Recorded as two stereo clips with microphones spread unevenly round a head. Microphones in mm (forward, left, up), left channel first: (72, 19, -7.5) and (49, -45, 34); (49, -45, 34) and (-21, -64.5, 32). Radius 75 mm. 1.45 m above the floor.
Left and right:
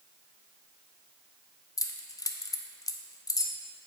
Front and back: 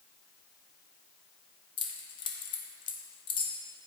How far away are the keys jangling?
About 0.7 m.